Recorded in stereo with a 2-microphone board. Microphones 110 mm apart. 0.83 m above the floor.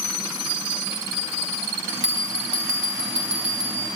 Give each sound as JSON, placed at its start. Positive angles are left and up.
{"t": 1.9, "sound": "a bell", "side_deg": -5, "distance_m": 3.0}